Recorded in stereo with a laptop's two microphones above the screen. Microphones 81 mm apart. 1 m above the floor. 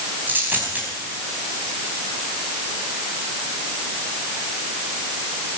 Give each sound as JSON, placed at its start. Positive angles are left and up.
{"t": 0.3, "sound": "a dropped coin", "side_deg": -25, "distance_m": 3.5}